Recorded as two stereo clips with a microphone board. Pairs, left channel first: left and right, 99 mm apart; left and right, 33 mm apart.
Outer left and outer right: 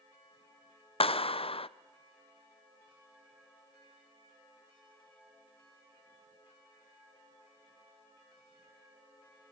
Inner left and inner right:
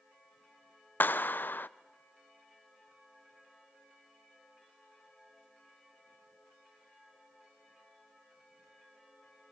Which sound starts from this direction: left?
A clap, at 1.0 s.